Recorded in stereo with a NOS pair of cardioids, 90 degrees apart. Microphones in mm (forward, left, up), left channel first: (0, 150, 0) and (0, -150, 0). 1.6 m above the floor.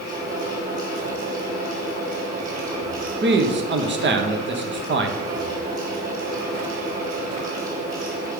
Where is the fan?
25° right, 3.5 m.